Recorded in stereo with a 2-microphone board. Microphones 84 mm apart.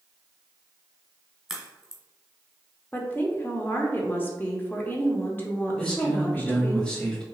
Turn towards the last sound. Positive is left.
turn(degrees=10)  # may be behind; listen again after turning